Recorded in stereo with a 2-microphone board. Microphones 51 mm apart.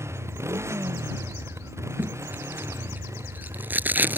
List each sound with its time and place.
0.0 s a motorcycle: 65° right (ahead or behind); by 4.2 s 80° right
2.0 s tape being pulled: 40° right (ahead or behind)